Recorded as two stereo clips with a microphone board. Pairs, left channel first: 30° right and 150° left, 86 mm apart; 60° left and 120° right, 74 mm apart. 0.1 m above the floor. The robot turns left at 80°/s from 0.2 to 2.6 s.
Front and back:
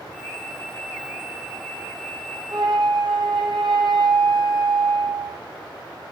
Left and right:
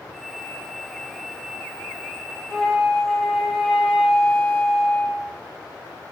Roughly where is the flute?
Behind left.